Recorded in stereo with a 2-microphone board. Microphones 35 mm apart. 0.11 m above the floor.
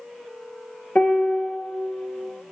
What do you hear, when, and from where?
0.9 s a piano: 45° left (ahead or behind), 0.6 m